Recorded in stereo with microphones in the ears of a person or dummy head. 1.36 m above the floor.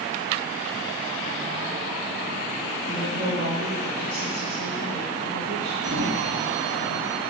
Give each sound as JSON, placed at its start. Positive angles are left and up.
{"t": 2.9, "sound": "a woman speaking", "side_deg": -45, "distance_m": 5.0}
{"t": 5.8, "sound": "a sliding door", "side_deg": -70, "distance_m": 2.5}